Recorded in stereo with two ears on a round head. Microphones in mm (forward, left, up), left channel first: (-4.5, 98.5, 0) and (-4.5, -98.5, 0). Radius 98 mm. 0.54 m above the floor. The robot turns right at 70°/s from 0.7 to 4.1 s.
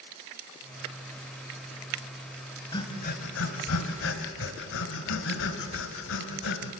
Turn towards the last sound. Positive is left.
turn(degrees=65)  # may be behind; listen again after turning